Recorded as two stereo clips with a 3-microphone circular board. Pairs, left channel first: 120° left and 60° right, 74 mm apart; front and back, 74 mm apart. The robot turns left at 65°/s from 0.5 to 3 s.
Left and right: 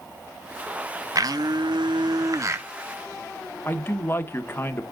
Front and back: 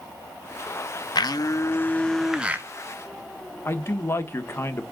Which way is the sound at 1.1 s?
20° right.